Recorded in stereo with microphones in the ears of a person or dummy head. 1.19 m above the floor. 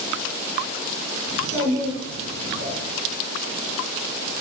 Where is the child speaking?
65° right (ahead or behind), 2 m.